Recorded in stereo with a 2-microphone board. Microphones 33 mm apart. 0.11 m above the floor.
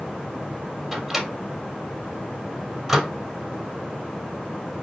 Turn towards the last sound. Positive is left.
turn(degrees=0)  # may be behind; listen again after turning